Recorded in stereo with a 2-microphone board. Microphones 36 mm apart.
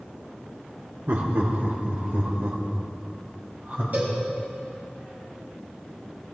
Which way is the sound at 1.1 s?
65° right (ahead or behind).